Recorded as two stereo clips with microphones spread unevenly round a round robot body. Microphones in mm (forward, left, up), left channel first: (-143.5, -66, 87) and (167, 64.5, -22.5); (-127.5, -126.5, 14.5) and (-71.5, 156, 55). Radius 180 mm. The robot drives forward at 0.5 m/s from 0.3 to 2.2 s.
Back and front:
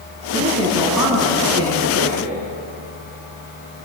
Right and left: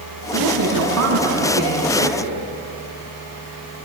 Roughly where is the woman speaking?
Left.